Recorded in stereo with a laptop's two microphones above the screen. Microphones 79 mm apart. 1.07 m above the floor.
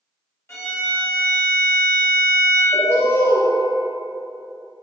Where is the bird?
30° left (ahead or behind), 0.7 m.